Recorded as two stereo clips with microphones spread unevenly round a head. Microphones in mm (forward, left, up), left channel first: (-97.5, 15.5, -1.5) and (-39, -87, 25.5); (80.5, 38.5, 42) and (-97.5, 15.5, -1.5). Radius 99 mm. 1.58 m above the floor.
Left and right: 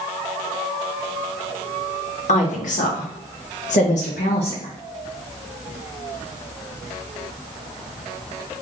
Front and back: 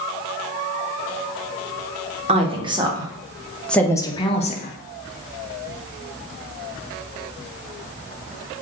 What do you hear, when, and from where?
2.3 s a woman speaking: 130° left, 1.2 m; by 4.7 s 55° left, 0.8 m